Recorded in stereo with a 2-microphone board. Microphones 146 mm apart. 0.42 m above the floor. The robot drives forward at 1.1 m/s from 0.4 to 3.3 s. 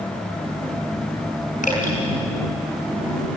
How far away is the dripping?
About 5 m.